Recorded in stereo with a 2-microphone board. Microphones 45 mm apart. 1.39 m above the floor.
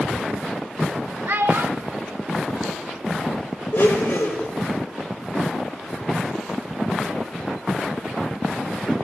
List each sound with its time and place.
1.3 s a child speaking: 50° right (ahead or behind), 0.7 m; by 3.3 s 65° right (ahead or behind), 3 m
3.7 s a blender: 65° left (ahead or behind), 3 m